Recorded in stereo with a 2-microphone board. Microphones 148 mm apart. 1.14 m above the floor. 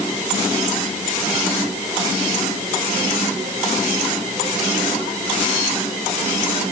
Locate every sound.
Only background noise.